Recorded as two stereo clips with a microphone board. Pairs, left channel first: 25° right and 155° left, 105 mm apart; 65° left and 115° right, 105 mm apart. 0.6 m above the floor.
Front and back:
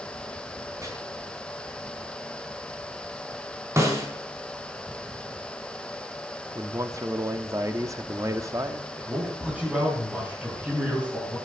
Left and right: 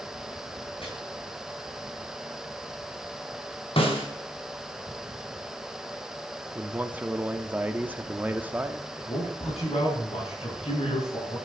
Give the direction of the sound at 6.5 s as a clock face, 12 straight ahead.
6 o'clock.